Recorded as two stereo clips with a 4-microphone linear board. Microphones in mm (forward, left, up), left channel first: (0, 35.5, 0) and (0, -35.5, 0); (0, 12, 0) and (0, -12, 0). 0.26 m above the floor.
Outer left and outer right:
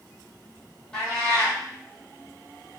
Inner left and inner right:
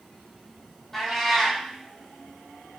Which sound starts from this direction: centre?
A cat meowing, at 0.9 s.